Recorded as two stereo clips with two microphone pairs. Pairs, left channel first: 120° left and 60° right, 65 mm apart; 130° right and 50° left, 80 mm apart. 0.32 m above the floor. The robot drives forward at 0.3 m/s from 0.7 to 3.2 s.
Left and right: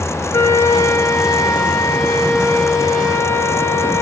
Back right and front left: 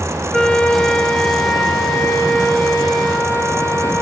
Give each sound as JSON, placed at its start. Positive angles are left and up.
{"t": 0.3, "sound": "a flute", "azimuth_deg": 155, "distance_m": 0.6}